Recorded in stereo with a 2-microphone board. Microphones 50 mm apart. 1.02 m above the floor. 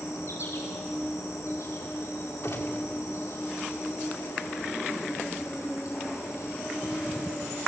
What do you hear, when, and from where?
0.0 s an insect: 85° left, 5.5 m
2.4 s a gunshot: 60° left (ahead or behind), 2 m